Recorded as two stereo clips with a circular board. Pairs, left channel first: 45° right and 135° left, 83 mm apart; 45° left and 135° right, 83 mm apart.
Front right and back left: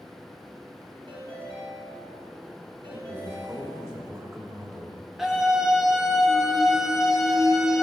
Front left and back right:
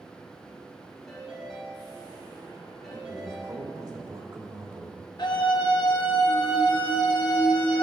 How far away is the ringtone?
About 4 m.